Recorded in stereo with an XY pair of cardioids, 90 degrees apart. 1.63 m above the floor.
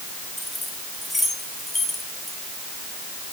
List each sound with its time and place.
0.4 s keys jangling: 15° left, 5 m; by 2.4 s 10° left, 4 m